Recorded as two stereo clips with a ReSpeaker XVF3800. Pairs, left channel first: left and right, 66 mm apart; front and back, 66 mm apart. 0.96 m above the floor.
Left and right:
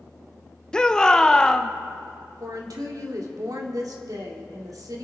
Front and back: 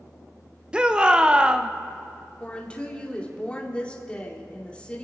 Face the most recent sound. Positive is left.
turn(degrees=-70)